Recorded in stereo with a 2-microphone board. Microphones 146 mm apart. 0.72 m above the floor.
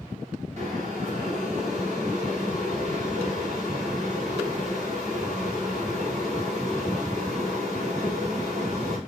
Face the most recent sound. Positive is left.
turn(degrees=-50)  # may be behind; listen again after turning